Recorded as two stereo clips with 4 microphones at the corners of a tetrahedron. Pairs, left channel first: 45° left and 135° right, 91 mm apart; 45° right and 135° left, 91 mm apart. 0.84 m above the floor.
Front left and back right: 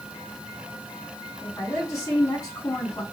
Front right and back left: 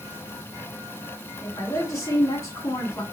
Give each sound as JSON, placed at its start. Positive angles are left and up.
{"t": 1.4, "sound": "a woman speaking", "azimuth_deg": 0, "distance_m": 1.9}